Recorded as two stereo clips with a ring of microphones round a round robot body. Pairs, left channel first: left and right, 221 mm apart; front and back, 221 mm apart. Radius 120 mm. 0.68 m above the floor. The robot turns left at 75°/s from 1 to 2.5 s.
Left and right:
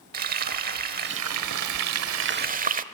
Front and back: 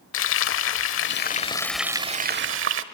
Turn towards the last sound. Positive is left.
turn(degrees=-145)